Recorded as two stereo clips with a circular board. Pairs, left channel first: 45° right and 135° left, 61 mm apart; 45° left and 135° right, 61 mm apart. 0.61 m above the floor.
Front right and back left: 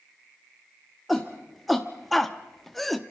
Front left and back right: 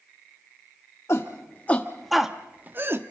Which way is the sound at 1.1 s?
45° left.